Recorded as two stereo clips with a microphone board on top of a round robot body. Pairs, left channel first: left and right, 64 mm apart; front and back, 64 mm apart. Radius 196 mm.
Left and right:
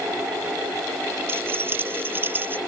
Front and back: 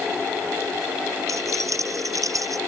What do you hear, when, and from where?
1.3 s keys jangling: 145° right; by 2.6 s 150° right